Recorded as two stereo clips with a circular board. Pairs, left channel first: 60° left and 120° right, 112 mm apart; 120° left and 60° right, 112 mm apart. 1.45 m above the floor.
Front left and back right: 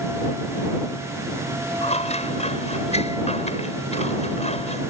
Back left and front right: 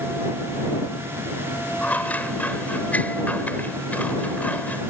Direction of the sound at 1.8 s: 45° left.